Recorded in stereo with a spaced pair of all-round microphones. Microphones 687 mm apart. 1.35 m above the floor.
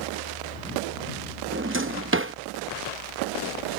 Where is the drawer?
20° right (ahead or behind).